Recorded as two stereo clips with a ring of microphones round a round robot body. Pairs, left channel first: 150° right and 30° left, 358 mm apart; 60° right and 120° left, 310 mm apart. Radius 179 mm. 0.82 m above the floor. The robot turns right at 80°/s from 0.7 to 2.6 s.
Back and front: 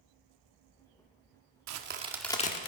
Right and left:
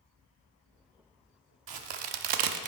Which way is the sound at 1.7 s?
75° left.